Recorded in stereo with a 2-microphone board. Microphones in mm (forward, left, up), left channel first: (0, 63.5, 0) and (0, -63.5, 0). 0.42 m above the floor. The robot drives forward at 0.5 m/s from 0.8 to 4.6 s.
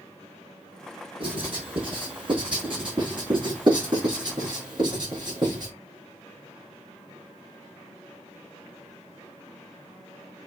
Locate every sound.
1.2 s writing: 45° right (ahead or behind), 5.5 m; by 5.7 s 35° right (ahead or behind), 6.5 m